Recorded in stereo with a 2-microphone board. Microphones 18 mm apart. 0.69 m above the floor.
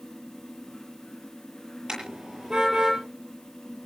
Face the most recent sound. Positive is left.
turn(degrees=-50)  # may be behind; listen again after turning